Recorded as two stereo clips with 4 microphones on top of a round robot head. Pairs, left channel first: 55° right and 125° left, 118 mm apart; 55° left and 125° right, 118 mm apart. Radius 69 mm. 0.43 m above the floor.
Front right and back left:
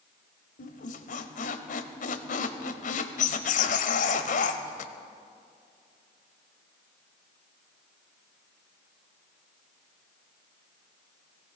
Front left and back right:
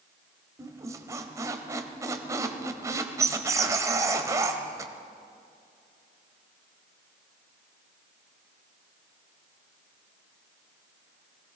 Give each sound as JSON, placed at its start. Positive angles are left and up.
{"t": 0.6, "sound": "a squeak", "azimuth_deg": -60, "distance_m": 0.9}